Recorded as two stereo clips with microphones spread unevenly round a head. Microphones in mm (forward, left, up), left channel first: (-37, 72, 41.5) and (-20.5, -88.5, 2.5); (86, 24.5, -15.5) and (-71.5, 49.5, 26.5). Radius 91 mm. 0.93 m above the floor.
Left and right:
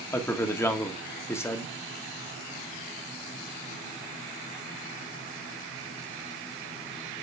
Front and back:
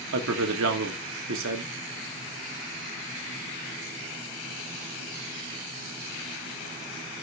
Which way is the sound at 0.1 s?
175° left.